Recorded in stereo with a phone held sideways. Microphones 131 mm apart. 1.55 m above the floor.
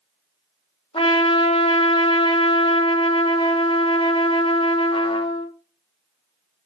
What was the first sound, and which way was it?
A trumpet, 45° left (ahead or behind).